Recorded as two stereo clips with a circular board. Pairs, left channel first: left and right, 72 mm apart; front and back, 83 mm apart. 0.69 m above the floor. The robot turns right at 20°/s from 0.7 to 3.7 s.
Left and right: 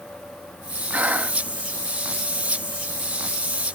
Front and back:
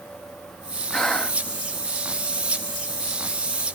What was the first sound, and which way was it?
Breathing, 75° right.